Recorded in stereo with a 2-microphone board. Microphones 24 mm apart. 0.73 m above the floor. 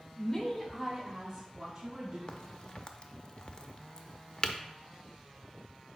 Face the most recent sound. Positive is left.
turn(degrees=40)  # may be behind; listen again after turning